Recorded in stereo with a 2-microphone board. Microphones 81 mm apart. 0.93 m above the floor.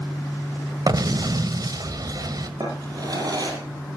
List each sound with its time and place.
0.9 s an explosion: 55° right (ahead or behind), 1.5 m
2.6 s a drawer: 50° right (ahead or behind), 6 m